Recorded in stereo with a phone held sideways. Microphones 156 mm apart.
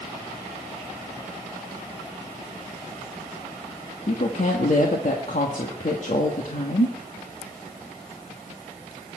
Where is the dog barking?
I don't hear a dog barking.